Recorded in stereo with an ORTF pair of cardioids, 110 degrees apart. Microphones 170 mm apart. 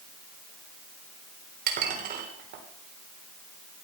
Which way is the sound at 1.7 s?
55° right.